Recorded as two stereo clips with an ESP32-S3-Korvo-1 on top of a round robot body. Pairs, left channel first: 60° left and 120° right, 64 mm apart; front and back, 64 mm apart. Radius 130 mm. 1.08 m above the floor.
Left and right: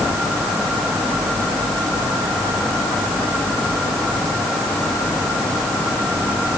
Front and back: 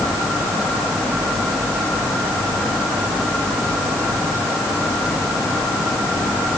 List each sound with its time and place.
Only background noise.